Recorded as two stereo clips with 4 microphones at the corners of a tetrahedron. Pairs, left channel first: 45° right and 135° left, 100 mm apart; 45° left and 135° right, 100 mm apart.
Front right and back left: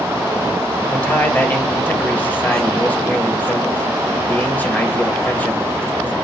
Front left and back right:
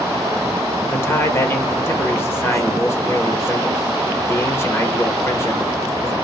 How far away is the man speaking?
About 1.2 m.